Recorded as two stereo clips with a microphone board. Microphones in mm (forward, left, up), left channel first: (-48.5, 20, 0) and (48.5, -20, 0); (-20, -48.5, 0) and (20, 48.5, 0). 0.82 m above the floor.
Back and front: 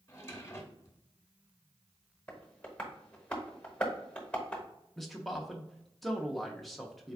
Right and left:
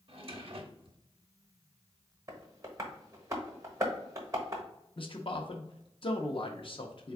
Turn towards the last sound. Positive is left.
turn(degrees=-115)